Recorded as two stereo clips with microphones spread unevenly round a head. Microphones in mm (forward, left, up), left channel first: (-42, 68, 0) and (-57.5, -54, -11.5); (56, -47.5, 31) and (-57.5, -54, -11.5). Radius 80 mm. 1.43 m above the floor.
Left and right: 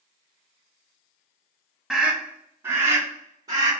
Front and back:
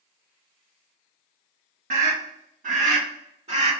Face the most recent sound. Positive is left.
turn(degrees=-145)